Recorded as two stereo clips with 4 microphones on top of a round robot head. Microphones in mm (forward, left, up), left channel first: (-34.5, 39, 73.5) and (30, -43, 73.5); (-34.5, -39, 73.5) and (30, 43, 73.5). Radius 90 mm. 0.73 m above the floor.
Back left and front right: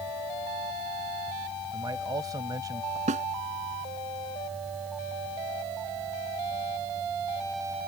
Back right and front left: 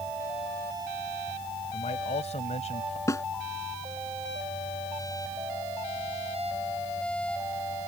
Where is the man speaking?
110° right.